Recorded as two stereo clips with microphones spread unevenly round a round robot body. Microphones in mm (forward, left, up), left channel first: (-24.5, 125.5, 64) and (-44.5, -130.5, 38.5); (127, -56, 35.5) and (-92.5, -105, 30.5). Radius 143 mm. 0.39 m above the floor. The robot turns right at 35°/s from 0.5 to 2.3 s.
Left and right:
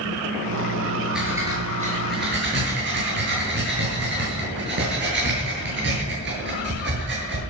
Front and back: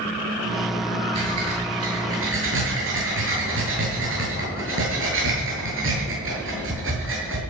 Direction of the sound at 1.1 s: Straight behind.